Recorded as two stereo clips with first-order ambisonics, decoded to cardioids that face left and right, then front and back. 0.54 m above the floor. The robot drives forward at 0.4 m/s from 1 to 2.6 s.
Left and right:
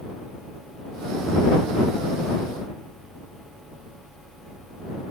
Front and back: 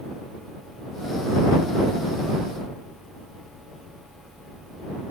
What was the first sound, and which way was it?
Only background noise.